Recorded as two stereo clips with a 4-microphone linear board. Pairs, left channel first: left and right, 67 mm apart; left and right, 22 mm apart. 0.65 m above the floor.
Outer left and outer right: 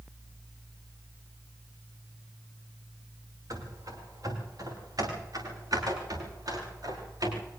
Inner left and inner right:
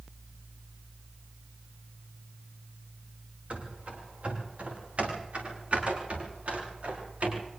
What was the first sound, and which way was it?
Running footsteps, 60° right (ahead or behind).